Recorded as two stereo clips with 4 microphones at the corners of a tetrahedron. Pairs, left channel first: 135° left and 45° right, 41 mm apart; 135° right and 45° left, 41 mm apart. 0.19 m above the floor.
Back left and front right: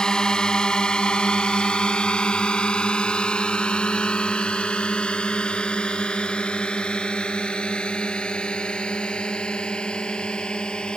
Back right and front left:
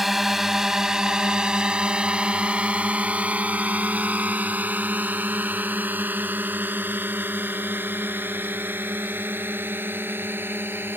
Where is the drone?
125° left; by 11.0 s 70° left.